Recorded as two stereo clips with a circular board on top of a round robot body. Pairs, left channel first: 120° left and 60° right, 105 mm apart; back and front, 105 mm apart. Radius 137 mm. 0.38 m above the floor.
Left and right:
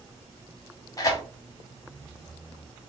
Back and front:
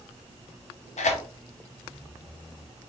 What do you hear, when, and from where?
1.0 s tearing paper: straight behind, 0.6 m